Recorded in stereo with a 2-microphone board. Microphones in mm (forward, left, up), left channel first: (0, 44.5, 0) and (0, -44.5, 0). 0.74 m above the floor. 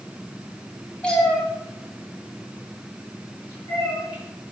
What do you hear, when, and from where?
1.0 s a cat meowing: 10° left (ahead or behind), 2.5 m; by 4.2 s 25° left (ahead or behind), 5.5 m